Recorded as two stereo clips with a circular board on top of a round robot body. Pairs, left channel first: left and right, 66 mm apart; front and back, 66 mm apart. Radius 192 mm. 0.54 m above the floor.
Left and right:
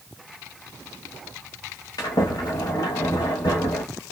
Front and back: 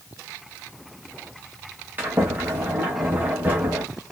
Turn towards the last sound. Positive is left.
turn(degrees=115)